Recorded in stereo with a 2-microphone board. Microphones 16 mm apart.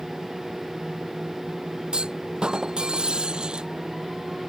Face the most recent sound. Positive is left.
turn(degrees=-65)  # may be behind; listen again after turning